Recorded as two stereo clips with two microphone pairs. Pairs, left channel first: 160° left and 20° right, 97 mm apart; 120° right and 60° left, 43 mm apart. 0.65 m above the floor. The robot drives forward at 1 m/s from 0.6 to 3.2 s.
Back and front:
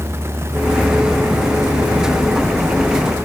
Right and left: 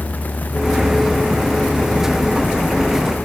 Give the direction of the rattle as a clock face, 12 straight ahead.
I don't hear a rattle.